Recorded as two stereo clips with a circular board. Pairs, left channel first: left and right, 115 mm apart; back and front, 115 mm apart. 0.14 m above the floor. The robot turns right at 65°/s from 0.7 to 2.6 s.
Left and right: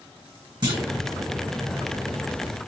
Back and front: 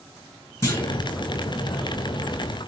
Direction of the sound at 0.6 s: 125° right.